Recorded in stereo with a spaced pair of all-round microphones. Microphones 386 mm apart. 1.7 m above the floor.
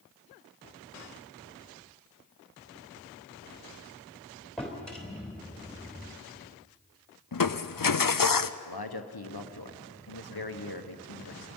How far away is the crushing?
About 0.6 m.